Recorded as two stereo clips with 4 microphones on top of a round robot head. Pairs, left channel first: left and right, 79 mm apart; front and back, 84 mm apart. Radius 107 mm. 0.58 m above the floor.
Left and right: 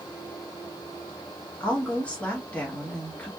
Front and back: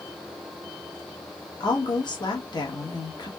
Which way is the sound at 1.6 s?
15° left.